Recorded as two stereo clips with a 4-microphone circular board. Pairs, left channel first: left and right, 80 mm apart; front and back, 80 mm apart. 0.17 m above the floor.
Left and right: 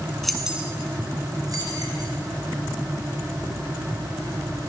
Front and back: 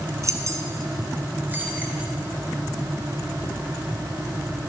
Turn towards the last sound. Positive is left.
turn(degrees=-110)